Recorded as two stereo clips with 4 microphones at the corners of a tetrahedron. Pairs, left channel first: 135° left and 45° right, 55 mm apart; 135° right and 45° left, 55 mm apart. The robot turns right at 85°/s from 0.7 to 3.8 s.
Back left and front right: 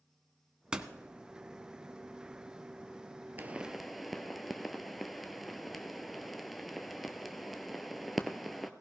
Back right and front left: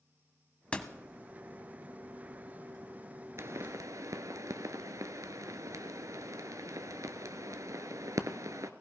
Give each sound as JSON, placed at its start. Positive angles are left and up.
{"t": 0.7, "sound": "a door slam", "azimuth_deg": -100, "distance_m": 1.0}
{"t": 3.4, "sound": "a pop", "azimuth_deg": 10, "distance_m": 0.9}